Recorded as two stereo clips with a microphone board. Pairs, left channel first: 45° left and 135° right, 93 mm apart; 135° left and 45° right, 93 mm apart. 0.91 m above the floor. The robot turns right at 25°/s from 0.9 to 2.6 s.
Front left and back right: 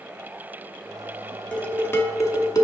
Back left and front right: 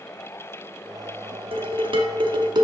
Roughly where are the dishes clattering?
Ahead right.